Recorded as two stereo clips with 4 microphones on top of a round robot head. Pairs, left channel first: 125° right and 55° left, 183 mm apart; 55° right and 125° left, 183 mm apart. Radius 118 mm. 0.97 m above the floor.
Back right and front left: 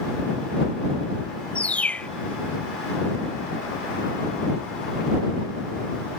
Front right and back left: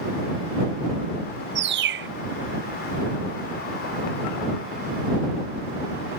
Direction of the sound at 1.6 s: 150° left.